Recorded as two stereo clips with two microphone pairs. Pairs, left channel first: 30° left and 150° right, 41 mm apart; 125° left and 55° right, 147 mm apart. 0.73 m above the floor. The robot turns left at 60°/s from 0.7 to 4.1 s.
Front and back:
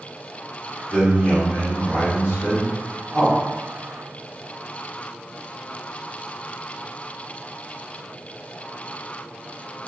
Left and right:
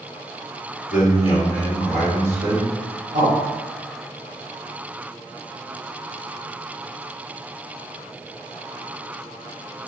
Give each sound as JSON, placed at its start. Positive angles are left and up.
{"t": 0.9, "sound": "a man speaking", "azimuth_deg": 100, "distance_m": 1.7}